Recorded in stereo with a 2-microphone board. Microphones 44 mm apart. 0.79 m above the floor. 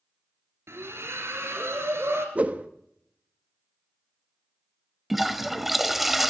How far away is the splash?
About 2.5 m.